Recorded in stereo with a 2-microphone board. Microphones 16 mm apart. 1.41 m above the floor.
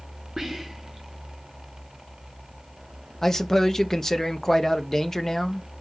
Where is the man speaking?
25° left (ahead or behind), 0.8 m.